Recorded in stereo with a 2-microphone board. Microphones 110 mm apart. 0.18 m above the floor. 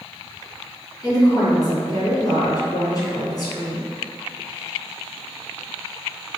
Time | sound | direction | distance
1.0 | a woman speaking | 35° left (ahead or behind) | 1.9 m